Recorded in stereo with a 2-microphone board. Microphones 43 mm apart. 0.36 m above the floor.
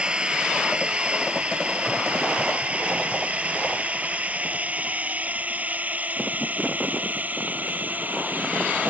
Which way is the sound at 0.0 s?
25° right (ahead or behind).